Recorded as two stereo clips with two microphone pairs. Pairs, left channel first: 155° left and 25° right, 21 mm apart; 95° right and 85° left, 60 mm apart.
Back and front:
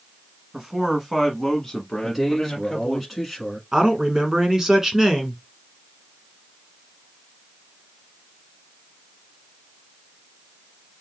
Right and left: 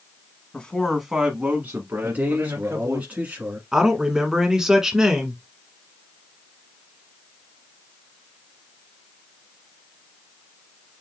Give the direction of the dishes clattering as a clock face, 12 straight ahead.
I don't hear dishes clattering.